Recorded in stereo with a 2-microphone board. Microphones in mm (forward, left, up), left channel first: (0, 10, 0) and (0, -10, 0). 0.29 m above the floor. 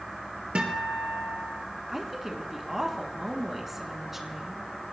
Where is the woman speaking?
10° right (ahead or behind), 3 m.